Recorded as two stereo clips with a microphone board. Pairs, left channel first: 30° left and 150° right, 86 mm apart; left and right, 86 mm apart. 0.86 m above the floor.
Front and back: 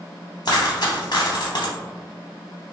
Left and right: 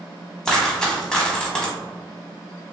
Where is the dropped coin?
10° left, 0.7 m.